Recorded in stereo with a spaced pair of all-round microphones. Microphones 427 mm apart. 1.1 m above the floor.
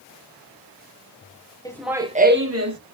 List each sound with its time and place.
1.6 s laughter: 10° left (ahead or behind), 0.9 m; by 2.8 s 45° right (ahead or behind), 1.1 m